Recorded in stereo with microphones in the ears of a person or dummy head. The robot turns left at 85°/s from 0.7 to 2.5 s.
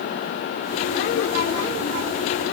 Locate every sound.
Only background noise.